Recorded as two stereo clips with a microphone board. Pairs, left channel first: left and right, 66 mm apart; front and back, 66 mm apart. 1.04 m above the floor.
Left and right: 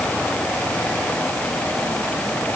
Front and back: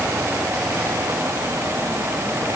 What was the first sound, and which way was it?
Only background noise.